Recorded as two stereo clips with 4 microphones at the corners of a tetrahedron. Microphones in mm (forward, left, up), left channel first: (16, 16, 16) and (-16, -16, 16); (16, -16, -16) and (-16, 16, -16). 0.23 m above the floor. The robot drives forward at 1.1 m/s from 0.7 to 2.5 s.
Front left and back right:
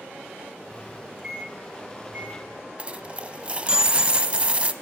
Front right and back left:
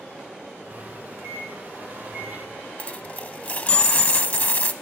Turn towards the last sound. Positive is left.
turn(degrees=-85)